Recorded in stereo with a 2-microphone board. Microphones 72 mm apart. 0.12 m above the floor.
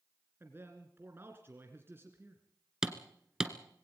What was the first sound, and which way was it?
A man speaking, 30° right (ahead or behind).